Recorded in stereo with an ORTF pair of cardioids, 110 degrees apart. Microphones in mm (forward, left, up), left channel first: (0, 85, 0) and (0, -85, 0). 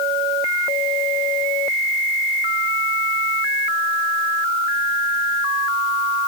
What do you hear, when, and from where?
Only background noise.